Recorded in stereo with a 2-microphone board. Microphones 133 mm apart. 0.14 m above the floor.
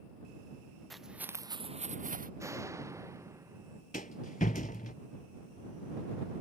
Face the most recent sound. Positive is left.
turn(degrees=70)  # may be behind; listen again after turning